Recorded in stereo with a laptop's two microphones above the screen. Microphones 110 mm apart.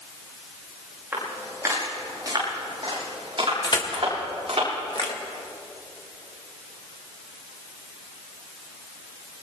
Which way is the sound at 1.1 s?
20° right (ahead or behind).